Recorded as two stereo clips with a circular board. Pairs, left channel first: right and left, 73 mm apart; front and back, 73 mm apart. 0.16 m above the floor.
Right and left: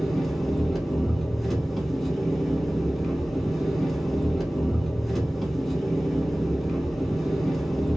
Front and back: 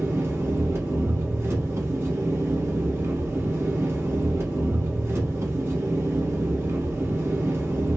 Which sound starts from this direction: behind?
An engine running, at 0.0 s.